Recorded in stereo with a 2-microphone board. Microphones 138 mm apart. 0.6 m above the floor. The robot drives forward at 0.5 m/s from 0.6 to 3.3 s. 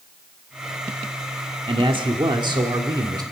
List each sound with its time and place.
1.7 s a man speaking: 40° right (ahead or behind), 1.5 m; by 3.2 s 30° right (ahead or behind), 2 m